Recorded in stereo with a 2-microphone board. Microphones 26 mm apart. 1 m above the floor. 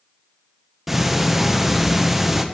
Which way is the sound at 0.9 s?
10° right (ahead or behind).